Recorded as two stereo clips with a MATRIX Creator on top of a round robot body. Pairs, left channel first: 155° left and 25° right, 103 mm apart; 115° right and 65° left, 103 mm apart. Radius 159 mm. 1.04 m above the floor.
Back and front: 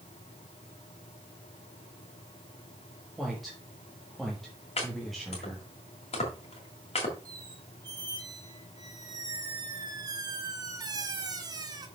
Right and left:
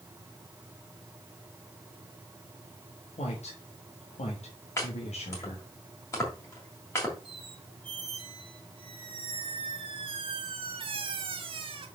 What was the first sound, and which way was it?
A woman speaking, 115° right.